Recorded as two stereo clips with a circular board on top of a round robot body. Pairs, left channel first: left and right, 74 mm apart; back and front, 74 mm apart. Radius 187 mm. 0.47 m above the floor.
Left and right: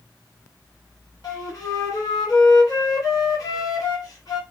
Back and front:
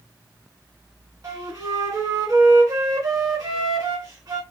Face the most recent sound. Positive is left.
turn(degrees=50)